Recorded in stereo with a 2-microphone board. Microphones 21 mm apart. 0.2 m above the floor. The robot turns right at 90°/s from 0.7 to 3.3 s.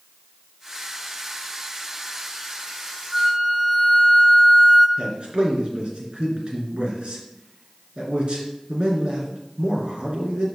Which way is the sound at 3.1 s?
10° right (ahead or behind).